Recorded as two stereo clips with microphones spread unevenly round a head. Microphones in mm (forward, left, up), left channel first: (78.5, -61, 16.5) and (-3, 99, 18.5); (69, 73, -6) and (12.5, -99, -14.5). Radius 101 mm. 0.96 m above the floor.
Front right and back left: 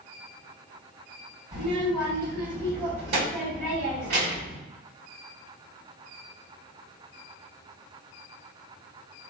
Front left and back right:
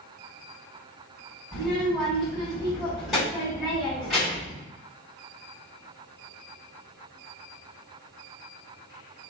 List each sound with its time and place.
1.5 s a child speaking: 160° left, 1.9 m